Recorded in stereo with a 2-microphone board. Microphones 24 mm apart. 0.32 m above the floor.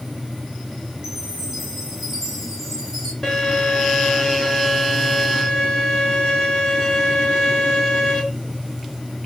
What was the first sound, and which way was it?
A chime, 15° right (ahead or behind).